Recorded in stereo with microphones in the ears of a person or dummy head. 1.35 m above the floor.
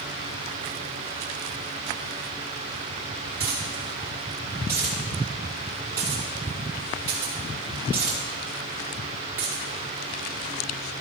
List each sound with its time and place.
3.4 s a dropped coin: 15° right (ahead or behind), 2.5 m